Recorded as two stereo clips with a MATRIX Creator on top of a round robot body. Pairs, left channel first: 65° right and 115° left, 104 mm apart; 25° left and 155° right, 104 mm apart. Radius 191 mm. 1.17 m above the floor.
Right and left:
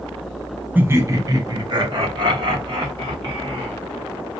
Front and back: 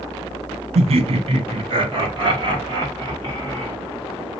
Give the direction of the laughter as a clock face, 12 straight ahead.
6 o'clock.